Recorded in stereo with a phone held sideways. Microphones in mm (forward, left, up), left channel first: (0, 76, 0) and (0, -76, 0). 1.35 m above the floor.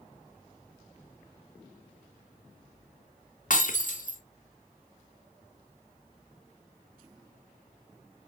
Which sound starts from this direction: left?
Breaking glass, at 3.5 s.